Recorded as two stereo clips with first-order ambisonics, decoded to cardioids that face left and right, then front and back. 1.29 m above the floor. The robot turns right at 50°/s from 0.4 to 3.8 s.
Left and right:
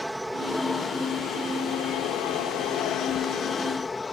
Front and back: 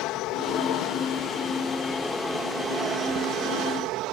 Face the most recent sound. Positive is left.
turn(degrees=165)